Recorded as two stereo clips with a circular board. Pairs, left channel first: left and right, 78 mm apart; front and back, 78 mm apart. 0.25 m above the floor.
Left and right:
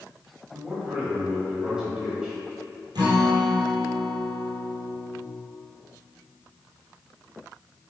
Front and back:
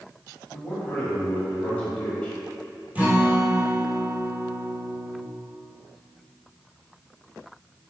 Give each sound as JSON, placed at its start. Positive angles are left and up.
{"t": 0.5, "sound": "a man speaking", "azimuth_deg": -35, "distance_m": 1.4}
{"t": 3.0, "sound": "a guitar", "azimuth_deg": -110, "distance_m": 1.2}